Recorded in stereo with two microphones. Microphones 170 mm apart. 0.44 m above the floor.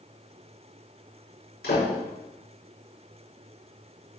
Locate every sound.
1.6 s a door slam: 70° left (ahead or behind), 5 m